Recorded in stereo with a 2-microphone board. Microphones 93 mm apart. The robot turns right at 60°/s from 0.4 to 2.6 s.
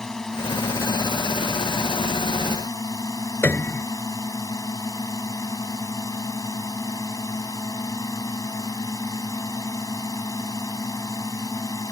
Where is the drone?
5° left; by 11.9 s 140° left.